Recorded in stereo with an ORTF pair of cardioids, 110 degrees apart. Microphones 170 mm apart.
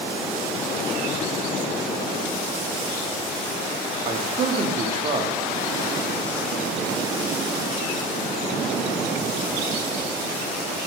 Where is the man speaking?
40° right, 0.9 m.